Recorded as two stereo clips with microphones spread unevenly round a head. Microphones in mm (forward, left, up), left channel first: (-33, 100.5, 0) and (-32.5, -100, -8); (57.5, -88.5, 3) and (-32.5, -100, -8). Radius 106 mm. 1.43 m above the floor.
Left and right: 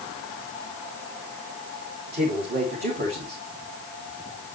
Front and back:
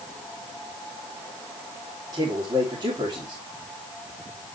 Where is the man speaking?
135° right, 3.5 m.